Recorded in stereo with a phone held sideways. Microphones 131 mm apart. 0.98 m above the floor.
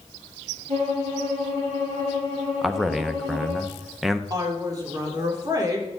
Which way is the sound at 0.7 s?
85° right.